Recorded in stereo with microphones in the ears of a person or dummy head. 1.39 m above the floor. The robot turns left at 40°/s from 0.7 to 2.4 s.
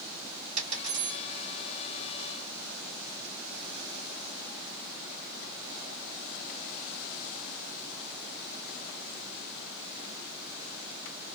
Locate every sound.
0.6 s a dropped coin: 40° right (ahead or behind), 1.7 m; by 1.2 s 25° right (ahead or behind), 1.7 m